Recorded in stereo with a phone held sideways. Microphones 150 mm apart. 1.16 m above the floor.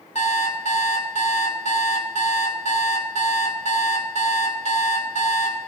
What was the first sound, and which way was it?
An alarm clock, 50° left (ahead or behind).